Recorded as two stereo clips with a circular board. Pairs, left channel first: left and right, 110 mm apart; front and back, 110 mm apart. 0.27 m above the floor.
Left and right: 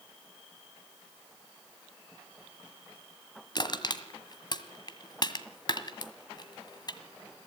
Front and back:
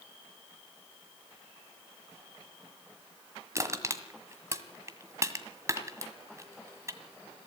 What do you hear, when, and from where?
3.5 s crushing: 125° left, 1.6 m